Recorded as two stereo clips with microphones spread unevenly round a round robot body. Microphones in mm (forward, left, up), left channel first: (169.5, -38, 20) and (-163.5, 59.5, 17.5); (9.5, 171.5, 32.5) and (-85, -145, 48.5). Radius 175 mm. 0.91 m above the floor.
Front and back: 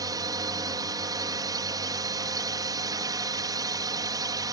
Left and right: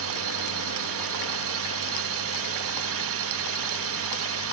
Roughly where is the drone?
Behind right.